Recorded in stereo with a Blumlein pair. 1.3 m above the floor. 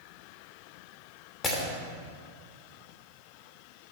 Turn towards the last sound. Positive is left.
turn(degrees=20)